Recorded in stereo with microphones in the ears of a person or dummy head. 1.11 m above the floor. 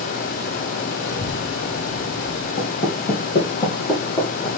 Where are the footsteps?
45° left (ahead or behind), 2.5 m; by 4.5 s 20° left (ahead or behind), 3 m.